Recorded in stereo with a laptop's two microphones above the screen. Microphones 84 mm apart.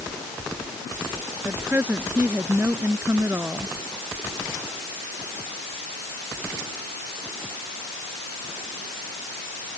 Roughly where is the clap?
No clap in this recording.